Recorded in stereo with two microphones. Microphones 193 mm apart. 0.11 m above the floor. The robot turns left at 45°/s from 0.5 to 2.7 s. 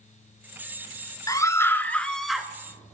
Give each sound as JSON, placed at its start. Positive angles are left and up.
{"t": 1.3, "sound": "a scream", "side_deg": 20, "distance_m": 1.1}